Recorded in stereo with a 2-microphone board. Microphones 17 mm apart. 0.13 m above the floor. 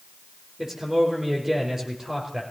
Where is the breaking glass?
I don't hear breaking glass.